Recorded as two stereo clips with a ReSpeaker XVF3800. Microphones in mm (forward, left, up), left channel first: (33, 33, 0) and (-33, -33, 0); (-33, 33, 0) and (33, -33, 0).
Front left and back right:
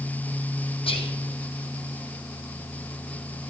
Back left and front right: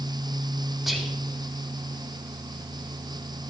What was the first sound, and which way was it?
Whispering, 45° left.